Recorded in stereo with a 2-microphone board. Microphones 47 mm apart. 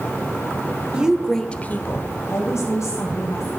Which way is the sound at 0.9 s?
20° right (ahead or behind).